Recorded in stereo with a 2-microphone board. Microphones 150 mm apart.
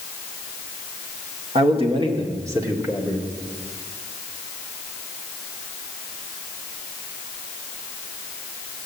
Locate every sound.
1.6 s a man speaking: 45° right (ahead or behind), 2.0 m; by 3.3 s 5° right (ahead or behind), 2 m